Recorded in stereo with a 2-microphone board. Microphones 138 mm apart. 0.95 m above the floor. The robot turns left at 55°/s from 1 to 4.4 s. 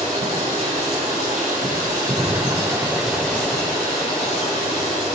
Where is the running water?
65° right, 3 m; by 5.2 s 110° left, 3 m.